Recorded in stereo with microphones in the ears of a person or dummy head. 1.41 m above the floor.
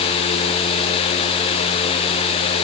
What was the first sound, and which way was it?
Only background noise.